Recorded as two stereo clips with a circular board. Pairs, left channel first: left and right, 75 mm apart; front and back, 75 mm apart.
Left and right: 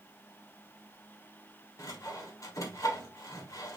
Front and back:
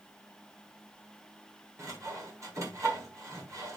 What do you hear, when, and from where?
1.8 s sawing: 135° left, 1.5 m